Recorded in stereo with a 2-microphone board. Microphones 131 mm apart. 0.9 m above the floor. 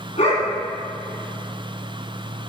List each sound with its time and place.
0.2 s a dog barking: 55° left (ahead or behind), 2.5 m